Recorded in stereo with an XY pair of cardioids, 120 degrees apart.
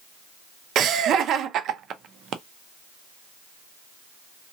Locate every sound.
0.8 s laughter: 60° right, 0.6 m